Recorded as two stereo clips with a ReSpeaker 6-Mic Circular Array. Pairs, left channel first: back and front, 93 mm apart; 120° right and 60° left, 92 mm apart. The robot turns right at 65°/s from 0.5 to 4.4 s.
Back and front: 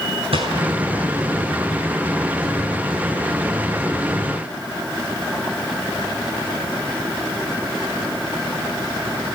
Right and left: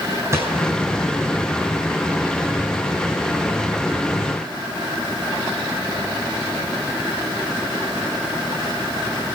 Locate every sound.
0.3 s a gunshot: straight ahead, 9.5 m; by 0.7 s 10° left, 9.5 m